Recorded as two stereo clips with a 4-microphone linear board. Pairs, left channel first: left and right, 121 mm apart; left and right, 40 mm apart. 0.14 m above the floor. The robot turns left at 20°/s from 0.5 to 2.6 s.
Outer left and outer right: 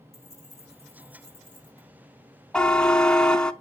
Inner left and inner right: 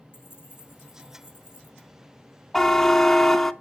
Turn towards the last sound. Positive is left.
turn(degrees=5)  # may be behind; listen again after turning